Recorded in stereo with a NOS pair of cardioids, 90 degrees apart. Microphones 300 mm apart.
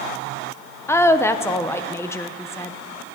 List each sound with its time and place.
0.9 s a woman speaking: 10° left, 1.0 m